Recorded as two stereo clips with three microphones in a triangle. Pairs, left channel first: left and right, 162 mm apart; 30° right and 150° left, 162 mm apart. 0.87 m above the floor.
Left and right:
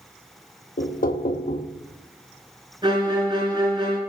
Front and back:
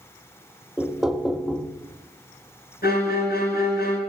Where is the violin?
30° right, 3 m.